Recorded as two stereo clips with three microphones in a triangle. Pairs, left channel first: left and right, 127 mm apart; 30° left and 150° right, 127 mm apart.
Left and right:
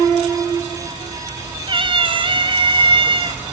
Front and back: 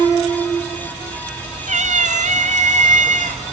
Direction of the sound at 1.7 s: 135° right.